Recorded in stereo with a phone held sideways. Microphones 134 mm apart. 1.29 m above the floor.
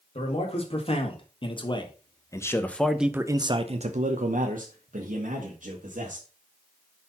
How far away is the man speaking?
About 1.9 m.